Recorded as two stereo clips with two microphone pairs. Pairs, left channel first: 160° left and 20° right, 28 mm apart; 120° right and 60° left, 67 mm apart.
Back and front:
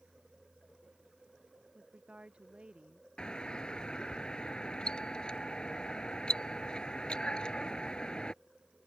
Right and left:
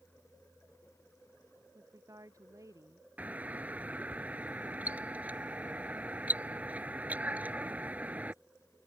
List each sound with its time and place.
1.8 s a woman speaking: 30° left
3.2 s a doorbell: 120° left